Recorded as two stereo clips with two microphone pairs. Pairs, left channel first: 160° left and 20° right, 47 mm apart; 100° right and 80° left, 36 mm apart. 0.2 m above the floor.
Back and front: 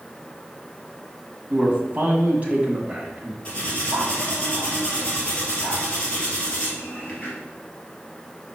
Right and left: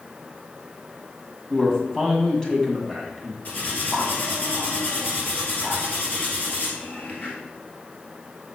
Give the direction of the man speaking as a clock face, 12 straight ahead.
2 o'clock.